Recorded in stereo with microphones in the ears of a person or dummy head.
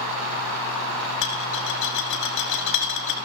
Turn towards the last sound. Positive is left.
turn(degrees=80)